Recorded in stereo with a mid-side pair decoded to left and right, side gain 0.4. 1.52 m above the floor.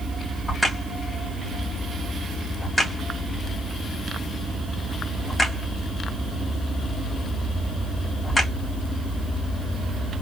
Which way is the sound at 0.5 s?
20° left.